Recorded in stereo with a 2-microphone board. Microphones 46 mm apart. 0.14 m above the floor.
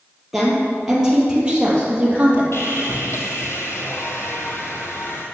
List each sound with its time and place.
0.3 s a woman speaking: 5° right (ahead or behind), 3.5 m; by 2.4 s 25° right (ahead or behind), 3.5 m
2.5 s sawing: 65° left (ahead or behind), 1.6 m